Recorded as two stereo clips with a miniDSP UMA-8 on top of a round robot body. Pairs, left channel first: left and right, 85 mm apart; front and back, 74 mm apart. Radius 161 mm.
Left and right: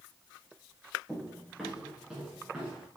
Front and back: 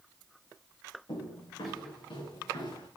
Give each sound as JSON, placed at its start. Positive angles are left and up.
{"t": 1.1, "sound": "footsteps", "azimuth_deg": -5, "distance_m": 3.5}